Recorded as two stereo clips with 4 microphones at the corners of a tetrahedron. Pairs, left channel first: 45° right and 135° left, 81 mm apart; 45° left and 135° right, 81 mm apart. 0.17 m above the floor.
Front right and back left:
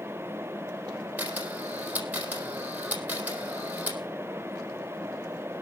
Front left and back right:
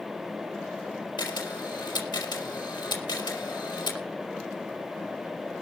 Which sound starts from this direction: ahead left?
A camera shutter, at 1.2 s.